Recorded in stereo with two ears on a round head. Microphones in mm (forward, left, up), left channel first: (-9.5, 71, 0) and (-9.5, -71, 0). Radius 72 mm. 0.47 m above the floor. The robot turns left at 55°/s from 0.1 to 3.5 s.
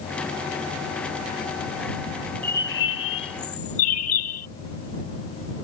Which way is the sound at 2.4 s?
165° left.